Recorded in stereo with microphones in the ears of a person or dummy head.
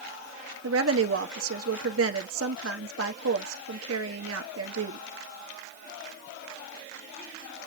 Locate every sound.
0.6 s a woman speaking: 85° right, 1.6 m